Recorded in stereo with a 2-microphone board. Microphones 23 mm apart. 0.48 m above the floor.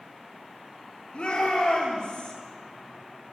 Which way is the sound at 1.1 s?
55° left (ahead or behind).